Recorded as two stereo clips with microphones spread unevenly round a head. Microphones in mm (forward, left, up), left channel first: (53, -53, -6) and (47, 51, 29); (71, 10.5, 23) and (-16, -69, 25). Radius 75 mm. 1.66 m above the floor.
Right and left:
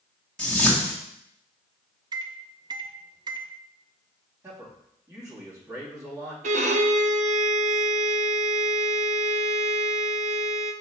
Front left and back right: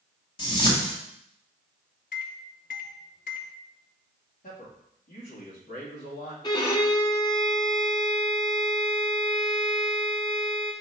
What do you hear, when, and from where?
0.4 s a whoosh: 5° left, 2.0 m
2.1 s a microwave: 65° left, 0.5 m
4.4 s a man speaking: 35° left, 2.5 m
6.4 s a violin: 105° left, 0.6 m